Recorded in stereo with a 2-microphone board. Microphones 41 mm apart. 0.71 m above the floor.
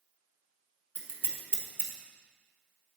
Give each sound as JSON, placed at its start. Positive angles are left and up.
{"t": 0.9, "sound": "scissors", "side_deg": 60, "distance_m": 1.0}